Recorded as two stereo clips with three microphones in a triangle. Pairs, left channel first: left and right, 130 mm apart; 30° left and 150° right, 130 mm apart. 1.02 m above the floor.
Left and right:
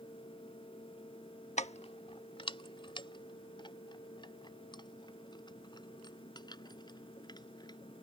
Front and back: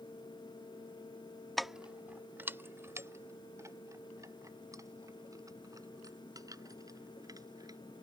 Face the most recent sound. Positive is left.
turn(degrees=145)